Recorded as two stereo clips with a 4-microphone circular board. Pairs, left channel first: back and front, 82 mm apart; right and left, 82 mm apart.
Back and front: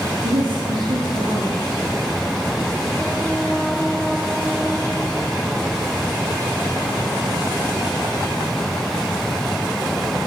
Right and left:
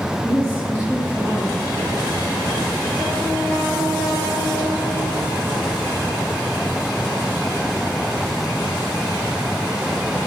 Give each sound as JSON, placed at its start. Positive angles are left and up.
{"t": 0.2, "sound": "a woman speaking", "azimuth_deg": 25, "distance_m": 7.5}